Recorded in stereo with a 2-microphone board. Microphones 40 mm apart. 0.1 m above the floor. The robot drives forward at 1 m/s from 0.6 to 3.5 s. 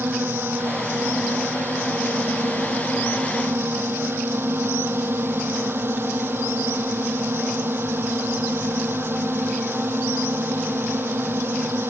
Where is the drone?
65° right (ahead or behind); by 11.9 s 70° right (ahead or behind).